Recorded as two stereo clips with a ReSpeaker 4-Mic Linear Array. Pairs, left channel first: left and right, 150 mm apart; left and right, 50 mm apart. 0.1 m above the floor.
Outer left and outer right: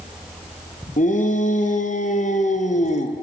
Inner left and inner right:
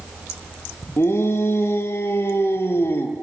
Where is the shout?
55° left (ahead or behind), 3.5 m; by 3.1 s 50° left (ahead or behind), 2.5 m.